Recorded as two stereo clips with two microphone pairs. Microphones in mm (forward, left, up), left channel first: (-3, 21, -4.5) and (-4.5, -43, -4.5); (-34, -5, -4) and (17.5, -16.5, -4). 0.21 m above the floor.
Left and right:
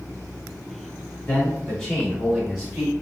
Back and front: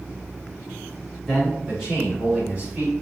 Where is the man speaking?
70° left, 1.4 m; by 2.9 s 30° right, 1.6 m.